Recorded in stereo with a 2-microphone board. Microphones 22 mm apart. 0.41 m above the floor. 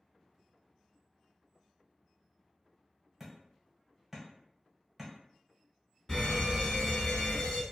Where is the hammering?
15° right (ahead or behind), 1.1 m.